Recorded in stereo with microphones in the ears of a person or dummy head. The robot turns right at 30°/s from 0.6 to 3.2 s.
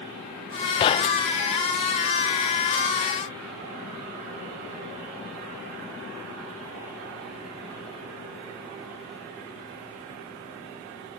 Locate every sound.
0.8 s knocking: 30° left (ahead or behind); by 1.4 s 40° left (ahead or behind)